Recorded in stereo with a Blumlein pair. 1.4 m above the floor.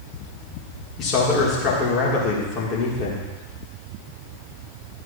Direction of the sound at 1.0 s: 30° left.